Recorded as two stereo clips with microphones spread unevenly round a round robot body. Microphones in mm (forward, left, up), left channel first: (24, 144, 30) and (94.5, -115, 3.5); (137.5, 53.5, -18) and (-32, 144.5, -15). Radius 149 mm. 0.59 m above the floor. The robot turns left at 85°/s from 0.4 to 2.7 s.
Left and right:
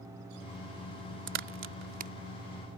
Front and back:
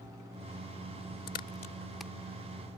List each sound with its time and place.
1.3 s a crack: 55° right; by 2.1 s 125° right